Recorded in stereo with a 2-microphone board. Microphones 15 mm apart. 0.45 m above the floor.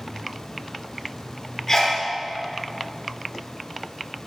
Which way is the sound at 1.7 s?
30° left (ahead or behind).